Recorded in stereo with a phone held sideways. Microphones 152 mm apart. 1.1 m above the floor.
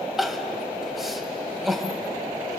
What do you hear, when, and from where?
0.2 s crying: centre (ahead or behind), 1.7 m